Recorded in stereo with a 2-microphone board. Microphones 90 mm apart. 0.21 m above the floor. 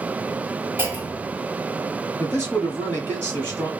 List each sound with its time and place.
0.8 s a clunk: 25° right (ahead or behind), 1.1 m
2.2 s a man speaking: 20° left (ahead or behind), 1.1 m